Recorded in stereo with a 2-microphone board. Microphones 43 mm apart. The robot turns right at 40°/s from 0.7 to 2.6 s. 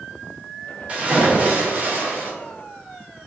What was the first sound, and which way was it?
A splash, 145° right.